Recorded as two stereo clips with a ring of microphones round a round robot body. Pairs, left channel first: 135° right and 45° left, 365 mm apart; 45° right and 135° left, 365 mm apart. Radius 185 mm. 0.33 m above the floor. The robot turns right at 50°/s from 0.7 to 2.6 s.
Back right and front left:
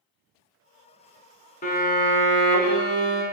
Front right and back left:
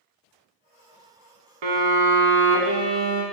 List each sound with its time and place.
1.6 s a violin: 155° left, 0.6 m; by 3.2 s 155° right, 0.6 m